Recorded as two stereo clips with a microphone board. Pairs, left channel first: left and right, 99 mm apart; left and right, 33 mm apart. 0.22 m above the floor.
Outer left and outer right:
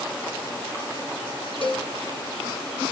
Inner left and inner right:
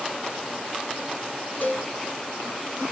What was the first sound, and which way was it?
A cowbell, 60° left (ahead or behind).